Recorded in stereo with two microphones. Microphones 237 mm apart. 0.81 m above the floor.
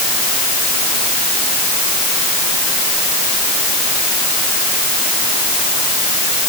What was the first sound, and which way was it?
Only background noise.